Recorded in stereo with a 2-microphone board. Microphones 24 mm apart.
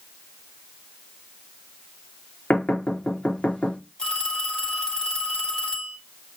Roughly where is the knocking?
Left.